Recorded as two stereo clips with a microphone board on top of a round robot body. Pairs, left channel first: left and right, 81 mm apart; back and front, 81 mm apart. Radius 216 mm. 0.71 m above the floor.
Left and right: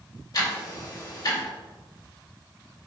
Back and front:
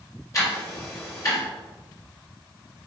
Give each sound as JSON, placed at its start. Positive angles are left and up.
{"t": 0.3, "sound": "ticking", "azimuth_deg": 130, "distance_m": 3.5}